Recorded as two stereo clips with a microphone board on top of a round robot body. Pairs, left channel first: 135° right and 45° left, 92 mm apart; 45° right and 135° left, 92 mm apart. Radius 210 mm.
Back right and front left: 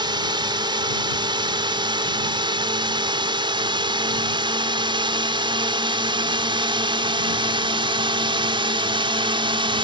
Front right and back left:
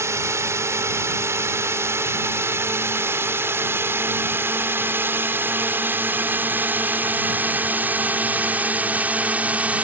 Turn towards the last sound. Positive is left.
turn(degrees=60)